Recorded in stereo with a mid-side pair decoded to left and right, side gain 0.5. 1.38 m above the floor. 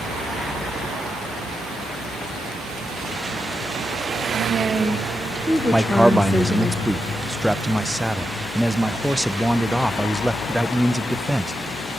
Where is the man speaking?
5° right, 0.6 m.